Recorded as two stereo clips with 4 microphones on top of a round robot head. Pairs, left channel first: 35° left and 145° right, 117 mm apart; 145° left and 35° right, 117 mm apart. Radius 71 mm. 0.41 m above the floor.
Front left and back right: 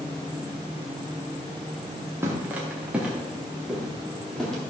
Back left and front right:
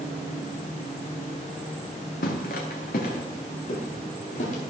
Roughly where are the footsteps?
Behind left.